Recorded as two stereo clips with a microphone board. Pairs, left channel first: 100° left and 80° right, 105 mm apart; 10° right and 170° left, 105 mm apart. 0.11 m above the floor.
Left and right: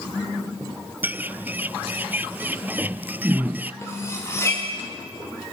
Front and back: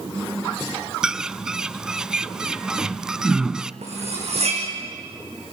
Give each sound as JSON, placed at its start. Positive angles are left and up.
{"t": 1.0, "sound": "a bird", "azimuth_deg": -115, "distance_m": 0.5}
{"t": 3.8, "sound": "cutlery clinking", "azimuth_deg": 165, "distance_m": 5.5}